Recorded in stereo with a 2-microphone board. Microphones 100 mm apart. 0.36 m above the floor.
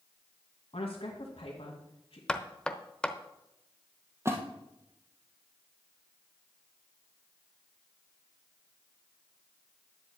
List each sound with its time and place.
0.7 s a woman speaking: 70° left (ahead or behind), 2 m
2.3 s knocking: 10° left (ahead or behind), 0.7 m
4.2 s a splash: 25° right (ahead or behind), 1.8 m